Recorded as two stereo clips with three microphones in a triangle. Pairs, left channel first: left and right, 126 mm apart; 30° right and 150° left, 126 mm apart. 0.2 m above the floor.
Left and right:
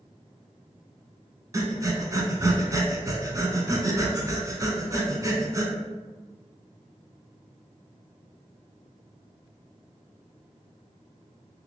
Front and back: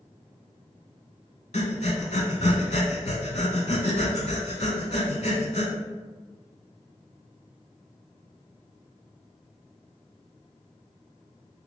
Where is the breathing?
30° right, 0.6 m.